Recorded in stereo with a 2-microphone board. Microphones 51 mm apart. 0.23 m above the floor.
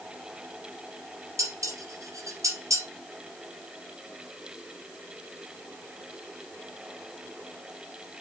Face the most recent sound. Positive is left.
turn(degrees=-75)  # may be behind; listen again after turning